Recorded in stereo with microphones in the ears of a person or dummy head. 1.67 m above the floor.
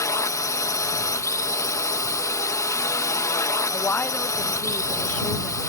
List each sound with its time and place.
0.0 s a drone: 20° left (ahead or behind)
3.7 s a woman speaking: 10° left (ahead or behind)